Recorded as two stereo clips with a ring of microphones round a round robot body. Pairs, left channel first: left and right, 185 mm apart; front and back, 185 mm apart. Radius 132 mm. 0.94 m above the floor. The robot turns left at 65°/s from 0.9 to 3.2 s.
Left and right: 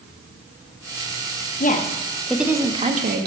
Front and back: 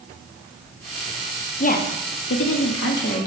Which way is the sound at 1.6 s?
50° left.